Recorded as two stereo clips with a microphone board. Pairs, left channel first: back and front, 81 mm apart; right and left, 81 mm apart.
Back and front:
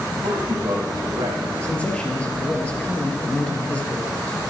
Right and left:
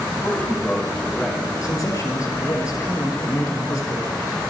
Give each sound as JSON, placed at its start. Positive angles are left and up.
{"t": 0.2, "sound": "a man speaking", "azimuth_deg": -15, "distance_m": 4.0}
{"t": 1.6, "sound": "a man speaking", "azimuth_deg": -110, "distance_m": 2.5}